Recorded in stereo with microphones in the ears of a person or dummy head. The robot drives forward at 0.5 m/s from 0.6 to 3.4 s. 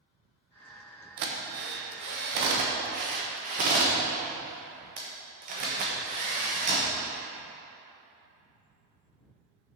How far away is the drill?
About 1.1 m.